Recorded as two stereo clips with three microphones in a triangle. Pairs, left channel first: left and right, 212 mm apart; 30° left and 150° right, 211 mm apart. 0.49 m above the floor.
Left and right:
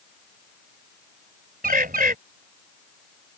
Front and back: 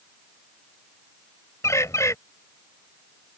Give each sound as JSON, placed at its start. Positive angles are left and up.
{"t": 1.6, "sound": "a bird", "azimuth_deg": -45}